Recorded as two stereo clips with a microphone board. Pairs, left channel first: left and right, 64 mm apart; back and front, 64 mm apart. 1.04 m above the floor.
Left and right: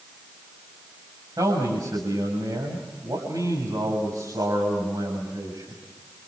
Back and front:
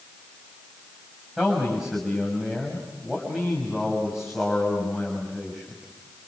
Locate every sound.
1.4 s a man speaking: 85° right, 6.5 m